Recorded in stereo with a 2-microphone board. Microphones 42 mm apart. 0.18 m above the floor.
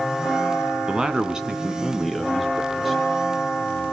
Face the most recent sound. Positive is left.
turn(degrees=-5)  # may be behind; listen again after turning